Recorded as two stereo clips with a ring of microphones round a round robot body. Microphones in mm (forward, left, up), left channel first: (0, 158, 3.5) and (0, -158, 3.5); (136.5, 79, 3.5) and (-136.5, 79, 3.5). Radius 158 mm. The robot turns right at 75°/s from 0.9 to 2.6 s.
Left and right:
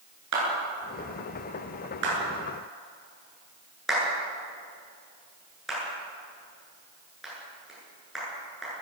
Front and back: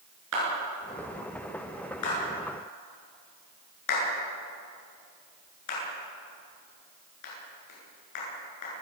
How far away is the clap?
About 10 m.